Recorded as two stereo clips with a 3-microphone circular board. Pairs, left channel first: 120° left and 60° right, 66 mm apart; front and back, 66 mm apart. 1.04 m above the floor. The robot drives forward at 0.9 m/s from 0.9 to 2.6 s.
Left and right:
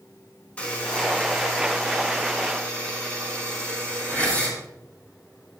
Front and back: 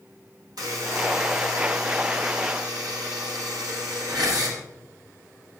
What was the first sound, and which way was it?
A buzzer, 170° right.